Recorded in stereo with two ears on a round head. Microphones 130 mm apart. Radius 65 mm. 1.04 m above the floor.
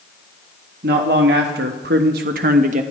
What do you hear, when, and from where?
0.8 s a man speaking: 75° right (ahead or behind), 1.5 m; by 2.8 s 50° right (ahead or behind), 1.1 m